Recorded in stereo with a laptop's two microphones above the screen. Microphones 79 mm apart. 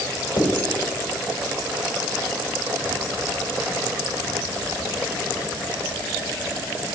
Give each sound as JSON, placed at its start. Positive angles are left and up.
{"t": 0.4, "sound": "writing", "side_deg": 65, "distance_m": 3.5}